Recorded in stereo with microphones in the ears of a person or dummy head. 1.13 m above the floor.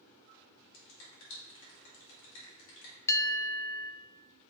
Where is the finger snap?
70° left (ahead or behind), 2.5 m.